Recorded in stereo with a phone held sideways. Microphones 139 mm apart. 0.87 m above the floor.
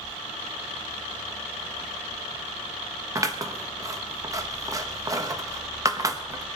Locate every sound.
3.1 s scissors: 25° right (ahead or behind), 1.1 m